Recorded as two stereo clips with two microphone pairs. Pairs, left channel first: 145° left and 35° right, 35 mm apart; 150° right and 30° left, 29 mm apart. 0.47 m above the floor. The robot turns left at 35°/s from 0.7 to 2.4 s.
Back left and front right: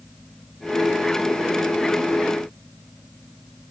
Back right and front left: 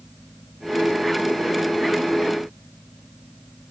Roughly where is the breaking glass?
I don't hear breaking glass.